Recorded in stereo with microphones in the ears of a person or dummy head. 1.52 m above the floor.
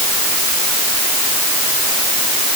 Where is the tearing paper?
No tearing paper in this recording.